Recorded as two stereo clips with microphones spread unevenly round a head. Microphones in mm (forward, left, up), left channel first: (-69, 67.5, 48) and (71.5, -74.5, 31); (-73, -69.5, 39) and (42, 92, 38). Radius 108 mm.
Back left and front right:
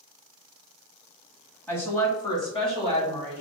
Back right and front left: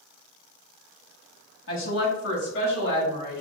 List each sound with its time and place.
1.7 s a woman speaking: 145° right, 1.4 m; by 3.4 s 165° right, 2 m